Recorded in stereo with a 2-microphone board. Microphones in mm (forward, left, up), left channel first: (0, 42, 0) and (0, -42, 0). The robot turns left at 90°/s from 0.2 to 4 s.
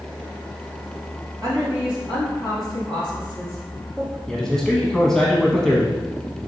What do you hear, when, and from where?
1.4 s a woman speaking: 45° right (ahead or behind), 2.5 m; by 4.2 s 5° right (ahead or behind), 2.5 m
4.3 s a man speaking: 5° left (ahead or behind), 1.1 m